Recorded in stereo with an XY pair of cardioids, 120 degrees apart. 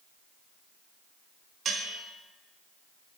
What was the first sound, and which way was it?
A bell, 40° right.